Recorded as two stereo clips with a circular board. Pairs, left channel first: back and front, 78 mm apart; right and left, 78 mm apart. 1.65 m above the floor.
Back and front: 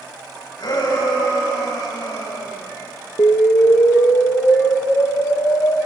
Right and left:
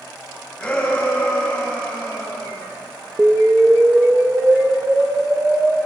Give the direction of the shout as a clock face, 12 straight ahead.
6 o'clock.